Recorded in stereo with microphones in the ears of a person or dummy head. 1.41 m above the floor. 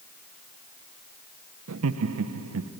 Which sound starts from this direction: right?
Laughter, at 1.7 s.